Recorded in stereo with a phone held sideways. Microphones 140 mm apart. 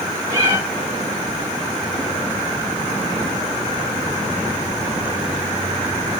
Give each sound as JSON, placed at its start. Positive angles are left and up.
{"t": 0.3, "sound": "a cat meowing", "side_deg": -20, "distance_m": 7.5}